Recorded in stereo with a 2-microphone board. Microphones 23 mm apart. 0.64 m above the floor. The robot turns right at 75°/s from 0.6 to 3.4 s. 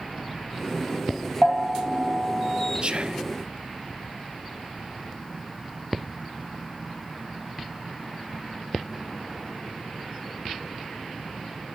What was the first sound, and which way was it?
A bell, 140° right.